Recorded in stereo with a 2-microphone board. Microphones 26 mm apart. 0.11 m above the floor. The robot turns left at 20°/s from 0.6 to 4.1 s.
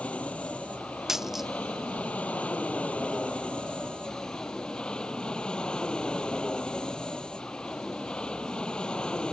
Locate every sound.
0.0 s an aircraft: 110° left; by 9.3 s 40° left
1.1 s a dropped coin: 15° right (ahead or behind); by 1.5 s 5° right (ahead or behind)